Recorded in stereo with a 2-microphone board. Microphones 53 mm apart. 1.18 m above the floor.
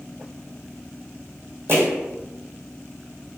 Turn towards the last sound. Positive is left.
turn(degrees=-45)  # may be behind; listen again after turning